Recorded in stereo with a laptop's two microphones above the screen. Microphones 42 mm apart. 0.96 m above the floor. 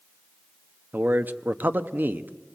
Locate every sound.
0.9 s a man speaking: 45° right (ahead or behind), 0.9 m